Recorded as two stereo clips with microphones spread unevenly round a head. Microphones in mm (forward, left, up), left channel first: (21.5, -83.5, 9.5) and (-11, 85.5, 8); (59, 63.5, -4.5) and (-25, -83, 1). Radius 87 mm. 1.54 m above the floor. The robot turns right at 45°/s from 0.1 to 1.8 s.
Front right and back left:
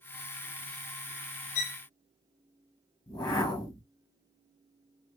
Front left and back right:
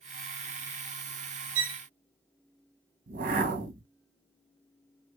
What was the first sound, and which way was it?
A violin, 125° right.